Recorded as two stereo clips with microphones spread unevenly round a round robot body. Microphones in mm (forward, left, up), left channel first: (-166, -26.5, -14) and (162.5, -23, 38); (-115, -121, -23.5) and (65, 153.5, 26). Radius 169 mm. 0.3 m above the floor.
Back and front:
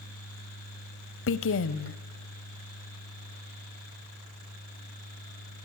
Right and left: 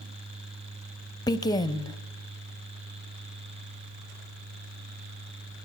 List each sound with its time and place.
1.3 s a woman speaking: 170° left, 1.2 m